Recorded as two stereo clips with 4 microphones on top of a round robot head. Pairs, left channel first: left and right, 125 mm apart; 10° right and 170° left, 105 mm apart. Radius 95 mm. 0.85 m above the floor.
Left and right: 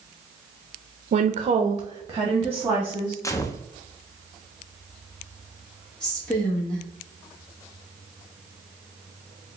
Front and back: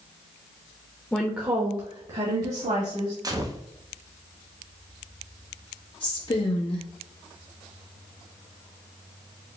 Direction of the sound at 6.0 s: 10° left.